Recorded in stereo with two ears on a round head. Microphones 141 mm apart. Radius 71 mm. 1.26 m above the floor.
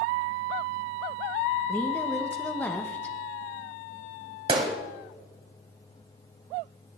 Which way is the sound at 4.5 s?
35° right (ahead or behind).